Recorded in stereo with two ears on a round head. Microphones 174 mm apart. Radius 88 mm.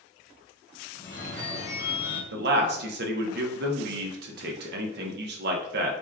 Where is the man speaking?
60° right (ahead or behind), 0.7 m.